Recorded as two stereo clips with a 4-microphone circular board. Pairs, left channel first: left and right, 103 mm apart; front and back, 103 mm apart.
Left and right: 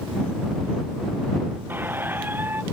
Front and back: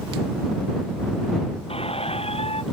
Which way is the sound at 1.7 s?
20° right.